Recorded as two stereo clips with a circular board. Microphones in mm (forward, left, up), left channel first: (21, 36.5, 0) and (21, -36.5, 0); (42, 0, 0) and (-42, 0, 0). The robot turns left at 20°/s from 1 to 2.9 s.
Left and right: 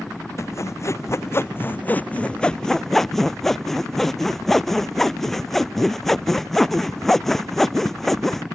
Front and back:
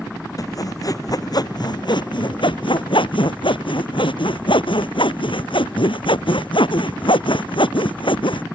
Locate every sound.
0.4 s sawing: 40° left; by 8.4 s 5° left